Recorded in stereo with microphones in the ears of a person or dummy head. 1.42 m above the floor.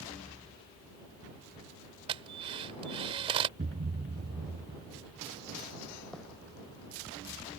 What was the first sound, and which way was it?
A drill, 35° right (ahead or behind).